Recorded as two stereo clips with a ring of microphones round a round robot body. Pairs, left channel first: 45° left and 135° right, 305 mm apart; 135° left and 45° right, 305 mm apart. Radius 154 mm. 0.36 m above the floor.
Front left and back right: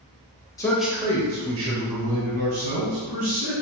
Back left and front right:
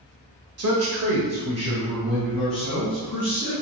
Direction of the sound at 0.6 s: 30° right.